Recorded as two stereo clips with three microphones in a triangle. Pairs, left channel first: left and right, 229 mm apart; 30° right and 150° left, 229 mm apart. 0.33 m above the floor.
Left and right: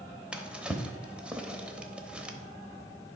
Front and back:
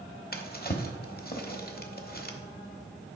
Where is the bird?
I don't hear a bird.